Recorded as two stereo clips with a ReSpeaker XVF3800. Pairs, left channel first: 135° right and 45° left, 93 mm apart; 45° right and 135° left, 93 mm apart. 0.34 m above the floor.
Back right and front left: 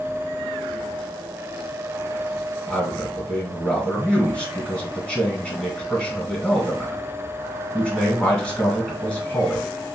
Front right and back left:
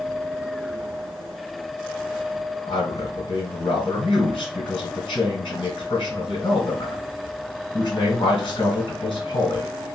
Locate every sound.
2.7 s a man speaking: 55° right, 2 m